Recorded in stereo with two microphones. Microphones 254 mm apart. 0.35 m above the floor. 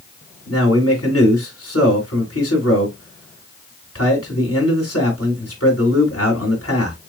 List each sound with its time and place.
0.5 s a man speaking: 65° left (ahead or behind), 2.5 m